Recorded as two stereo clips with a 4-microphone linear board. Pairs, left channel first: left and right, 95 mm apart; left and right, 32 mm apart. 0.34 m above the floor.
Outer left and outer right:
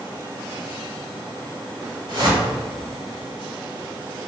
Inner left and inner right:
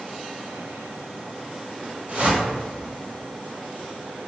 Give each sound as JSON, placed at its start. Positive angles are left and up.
{"t": 2.1, "sound": "a whoosh", "side_deg": -55, "distance_m": 0.8}